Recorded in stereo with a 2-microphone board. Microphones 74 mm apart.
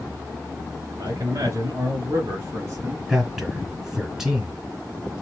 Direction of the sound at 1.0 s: 45° right (ahead or behind).